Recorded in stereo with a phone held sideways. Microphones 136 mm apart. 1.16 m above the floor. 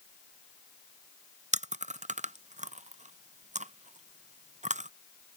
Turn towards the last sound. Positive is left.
turn(degrees=-60)  # may be behind; listen again after turning